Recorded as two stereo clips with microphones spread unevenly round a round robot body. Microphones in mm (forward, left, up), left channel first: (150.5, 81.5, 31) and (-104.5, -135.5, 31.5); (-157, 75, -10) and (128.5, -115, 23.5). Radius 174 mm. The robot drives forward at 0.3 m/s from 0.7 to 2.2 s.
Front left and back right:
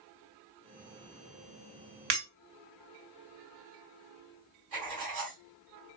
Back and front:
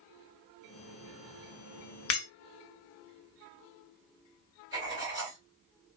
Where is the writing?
115° right, 3 m.